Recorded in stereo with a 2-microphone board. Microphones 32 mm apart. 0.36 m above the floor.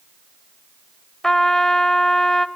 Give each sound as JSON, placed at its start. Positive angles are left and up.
{"t": 1.2, "sound": "a trumpet", "side_deg": 15, "distance_m": 1.0}